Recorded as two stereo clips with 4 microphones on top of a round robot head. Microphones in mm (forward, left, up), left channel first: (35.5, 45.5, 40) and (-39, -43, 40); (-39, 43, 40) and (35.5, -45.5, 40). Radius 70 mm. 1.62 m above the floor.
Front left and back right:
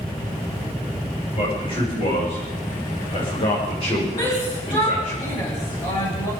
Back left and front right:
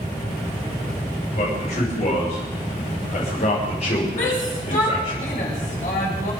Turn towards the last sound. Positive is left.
turn(degrees=110)